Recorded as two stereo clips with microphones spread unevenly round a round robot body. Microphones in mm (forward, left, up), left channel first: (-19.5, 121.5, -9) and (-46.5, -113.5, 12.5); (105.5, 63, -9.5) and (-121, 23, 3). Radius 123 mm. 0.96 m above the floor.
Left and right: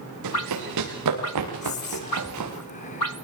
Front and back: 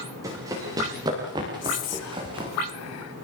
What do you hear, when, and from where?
0.2 s running footsteps: 90° right, 9.5 m; by 2.5 s 100° right, 8 m
1.6 s whispering: 20° left, 3 m